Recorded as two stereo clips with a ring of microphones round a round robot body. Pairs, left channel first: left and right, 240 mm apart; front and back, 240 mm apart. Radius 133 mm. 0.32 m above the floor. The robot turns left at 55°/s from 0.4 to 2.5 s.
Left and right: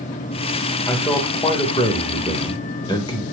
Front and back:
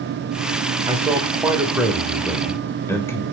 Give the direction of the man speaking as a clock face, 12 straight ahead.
7 o'clock.